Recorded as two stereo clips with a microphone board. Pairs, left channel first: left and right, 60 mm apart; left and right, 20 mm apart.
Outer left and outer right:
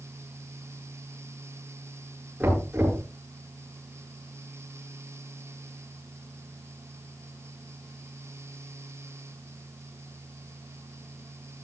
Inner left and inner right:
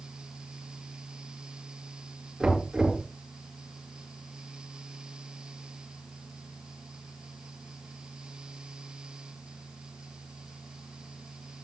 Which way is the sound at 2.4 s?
25° right (ahead or behind).